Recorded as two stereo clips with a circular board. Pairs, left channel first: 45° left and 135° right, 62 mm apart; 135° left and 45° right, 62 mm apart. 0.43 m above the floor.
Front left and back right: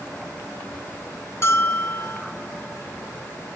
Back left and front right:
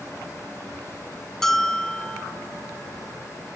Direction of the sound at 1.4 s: 55° left.